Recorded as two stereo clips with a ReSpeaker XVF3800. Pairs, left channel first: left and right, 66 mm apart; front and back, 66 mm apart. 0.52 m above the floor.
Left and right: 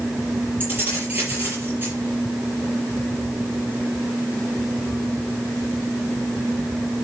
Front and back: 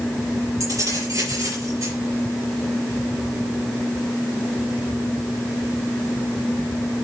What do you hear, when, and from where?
0.6 s keys jangling: 150° right, 7 m